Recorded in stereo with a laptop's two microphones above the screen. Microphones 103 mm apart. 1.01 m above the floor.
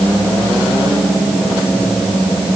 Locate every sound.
Only background noise.